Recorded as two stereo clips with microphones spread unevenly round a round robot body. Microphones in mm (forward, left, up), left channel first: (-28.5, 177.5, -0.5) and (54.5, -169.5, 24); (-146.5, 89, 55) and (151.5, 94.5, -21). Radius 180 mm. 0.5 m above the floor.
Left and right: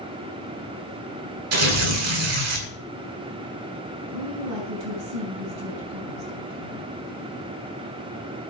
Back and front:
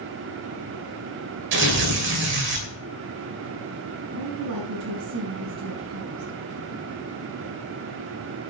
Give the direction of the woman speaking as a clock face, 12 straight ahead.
1 o'clock.